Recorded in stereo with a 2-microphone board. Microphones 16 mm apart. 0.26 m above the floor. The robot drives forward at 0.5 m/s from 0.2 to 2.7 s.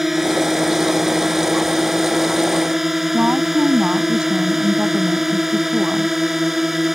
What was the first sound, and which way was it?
A drone, 10° right (ahead or behind).